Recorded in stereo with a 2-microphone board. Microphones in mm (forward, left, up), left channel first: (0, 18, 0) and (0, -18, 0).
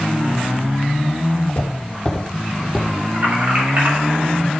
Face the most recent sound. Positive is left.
turn(degrees=-65)  # may be behind; listen again after turning